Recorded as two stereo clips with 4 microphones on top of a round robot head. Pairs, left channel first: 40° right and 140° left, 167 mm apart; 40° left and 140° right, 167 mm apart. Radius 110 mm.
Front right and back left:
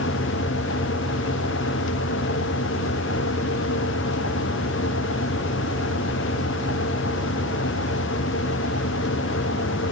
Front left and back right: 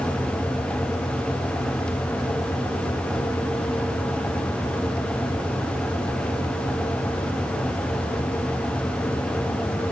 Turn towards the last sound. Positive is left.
No sound to turn to.